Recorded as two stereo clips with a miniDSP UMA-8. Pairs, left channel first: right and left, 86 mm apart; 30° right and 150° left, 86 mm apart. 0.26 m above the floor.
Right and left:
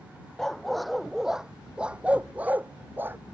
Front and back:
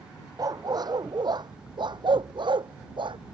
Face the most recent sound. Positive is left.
turn(degrees=155)